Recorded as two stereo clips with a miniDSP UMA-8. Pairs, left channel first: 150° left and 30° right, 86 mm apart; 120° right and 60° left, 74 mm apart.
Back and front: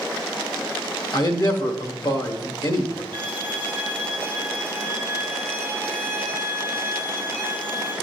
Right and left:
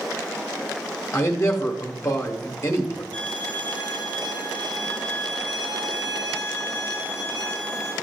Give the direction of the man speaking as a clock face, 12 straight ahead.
6 o'clock.